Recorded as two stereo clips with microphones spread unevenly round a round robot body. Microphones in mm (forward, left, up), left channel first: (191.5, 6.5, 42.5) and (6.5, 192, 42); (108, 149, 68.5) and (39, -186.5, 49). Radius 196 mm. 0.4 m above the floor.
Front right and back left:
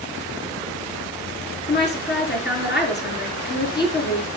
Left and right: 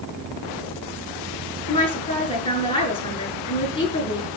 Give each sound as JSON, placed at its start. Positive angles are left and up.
{"t": 1.7, "sound": "a woman speaking", "azimuth_deg": 5, "distance_m": 5.0}